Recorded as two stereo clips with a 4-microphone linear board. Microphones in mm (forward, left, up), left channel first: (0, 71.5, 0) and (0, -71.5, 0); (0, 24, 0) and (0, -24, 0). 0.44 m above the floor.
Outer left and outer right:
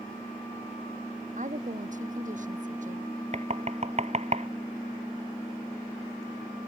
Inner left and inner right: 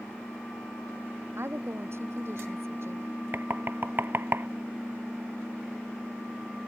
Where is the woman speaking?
60° right (ahead or behind).